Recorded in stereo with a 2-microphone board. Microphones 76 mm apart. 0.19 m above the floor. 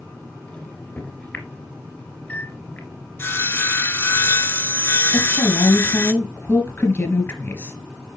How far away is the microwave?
About 2.5 m.